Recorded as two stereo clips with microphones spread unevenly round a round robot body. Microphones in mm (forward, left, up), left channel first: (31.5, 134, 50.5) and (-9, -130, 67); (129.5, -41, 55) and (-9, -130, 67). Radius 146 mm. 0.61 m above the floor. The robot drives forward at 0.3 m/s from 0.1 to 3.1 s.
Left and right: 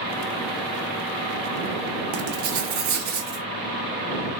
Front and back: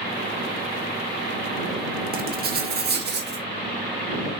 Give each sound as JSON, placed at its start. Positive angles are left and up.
{"t": 2.1, "sound": "writing", "azimuth_deg": -115, "distance_m": 1.0}